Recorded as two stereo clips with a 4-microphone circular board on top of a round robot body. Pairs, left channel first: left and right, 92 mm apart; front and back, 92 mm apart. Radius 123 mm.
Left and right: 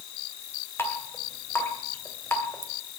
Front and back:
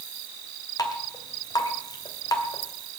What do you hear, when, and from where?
0.8 s dripping: 30° left, 2.5 m